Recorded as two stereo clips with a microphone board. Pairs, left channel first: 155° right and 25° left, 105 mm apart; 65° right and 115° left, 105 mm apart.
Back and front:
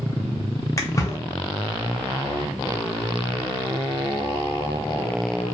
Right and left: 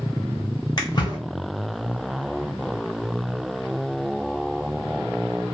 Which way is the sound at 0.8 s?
105° right.